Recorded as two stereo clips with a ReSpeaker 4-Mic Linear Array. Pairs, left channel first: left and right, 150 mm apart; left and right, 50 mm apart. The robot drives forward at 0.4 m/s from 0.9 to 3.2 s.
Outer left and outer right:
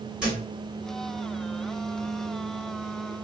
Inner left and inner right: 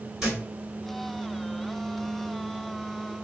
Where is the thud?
5° right (ahead or behind), 1.8 m.